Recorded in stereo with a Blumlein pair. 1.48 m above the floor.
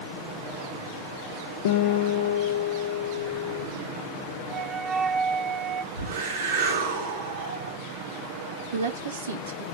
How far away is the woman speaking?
About 2.5 m.